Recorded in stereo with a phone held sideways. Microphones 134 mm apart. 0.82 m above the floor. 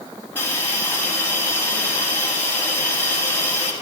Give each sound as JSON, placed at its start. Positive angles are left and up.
{"t": 0.3, "sound": "a hiss", "side_deg": 15, "distance_m": 4.5}